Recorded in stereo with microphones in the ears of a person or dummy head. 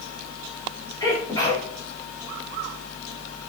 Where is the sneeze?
25° left (ahead or behind), 3.5 m.